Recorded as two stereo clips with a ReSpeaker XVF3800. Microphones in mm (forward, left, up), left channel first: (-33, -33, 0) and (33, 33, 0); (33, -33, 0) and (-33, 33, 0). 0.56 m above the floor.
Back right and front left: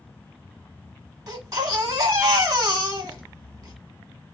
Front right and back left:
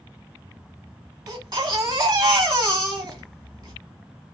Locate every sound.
1.3 s a baby crying: 95° left, 1.3 m